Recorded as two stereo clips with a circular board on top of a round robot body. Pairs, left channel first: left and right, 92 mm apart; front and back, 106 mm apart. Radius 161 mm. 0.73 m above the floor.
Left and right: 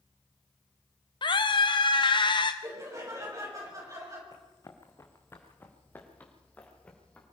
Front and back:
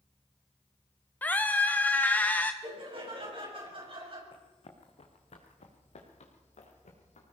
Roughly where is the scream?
Left.